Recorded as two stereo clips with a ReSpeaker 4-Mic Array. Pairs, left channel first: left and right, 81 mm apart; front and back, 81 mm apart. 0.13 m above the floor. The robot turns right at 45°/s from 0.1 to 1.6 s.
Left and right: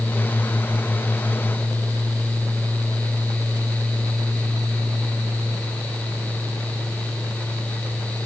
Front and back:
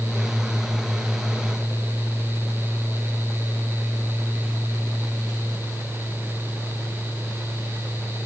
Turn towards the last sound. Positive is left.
No sound to turn to.